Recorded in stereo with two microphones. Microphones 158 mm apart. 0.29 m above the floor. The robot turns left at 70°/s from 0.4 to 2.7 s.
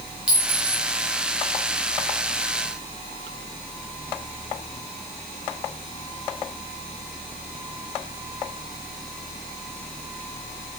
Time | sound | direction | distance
0.3 | a clink | 5° right (ahead or behind) | 1.2 m